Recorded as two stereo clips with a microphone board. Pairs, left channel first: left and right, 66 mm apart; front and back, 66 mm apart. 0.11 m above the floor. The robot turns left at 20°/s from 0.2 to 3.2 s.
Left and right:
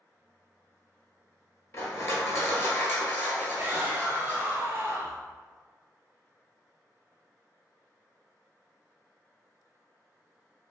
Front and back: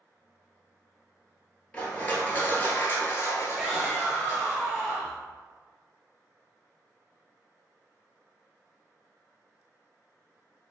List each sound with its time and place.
1.7 s crushing: 65° left, 0.8 m; by 4.5 s 35° left, 0.8 m
3.5 s a shout: 105° right, 1.4 m